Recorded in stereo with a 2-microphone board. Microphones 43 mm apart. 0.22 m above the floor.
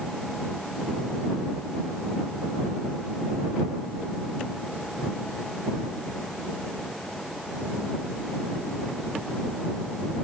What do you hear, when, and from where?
Only background noise.